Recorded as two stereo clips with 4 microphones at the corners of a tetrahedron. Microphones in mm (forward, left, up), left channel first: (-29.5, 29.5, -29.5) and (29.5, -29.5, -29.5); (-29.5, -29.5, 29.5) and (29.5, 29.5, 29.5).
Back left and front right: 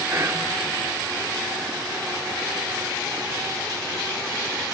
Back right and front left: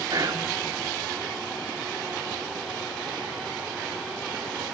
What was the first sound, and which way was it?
Whispering, 10° left.